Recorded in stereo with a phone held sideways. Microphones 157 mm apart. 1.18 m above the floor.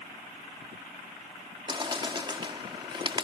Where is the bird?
30° right (ahead or behind).